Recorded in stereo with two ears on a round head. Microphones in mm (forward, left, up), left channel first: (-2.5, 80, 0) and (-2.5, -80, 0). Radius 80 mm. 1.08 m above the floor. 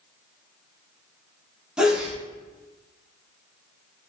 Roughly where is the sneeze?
Centre.